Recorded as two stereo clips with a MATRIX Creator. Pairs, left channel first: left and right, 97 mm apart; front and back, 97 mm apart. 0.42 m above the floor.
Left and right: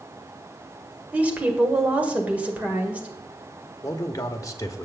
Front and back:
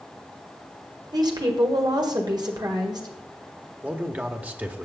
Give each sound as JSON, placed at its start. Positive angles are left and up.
{"t": 1.1, "sound": "a woman speaking", "azimuth_deg": -160, "distance_m": 1.8}
{"t": 3.8, "sound": "a man speaking", "azimuth_deg": 115, "distance_m": 1.0}